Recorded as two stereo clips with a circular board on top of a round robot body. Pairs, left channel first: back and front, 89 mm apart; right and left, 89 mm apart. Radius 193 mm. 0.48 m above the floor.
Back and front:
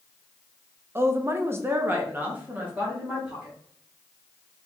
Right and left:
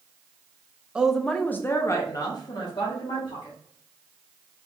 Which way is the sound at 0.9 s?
20° left.